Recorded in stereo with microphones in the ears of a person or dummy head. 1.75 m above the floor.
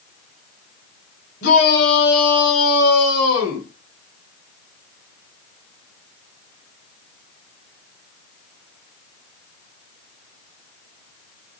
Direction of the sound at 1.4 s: 60° left (ahead or behind).